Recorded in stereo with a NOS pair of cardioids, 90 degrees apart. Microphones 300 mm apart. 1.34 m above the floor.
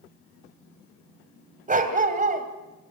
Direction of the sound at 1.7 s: 25° right.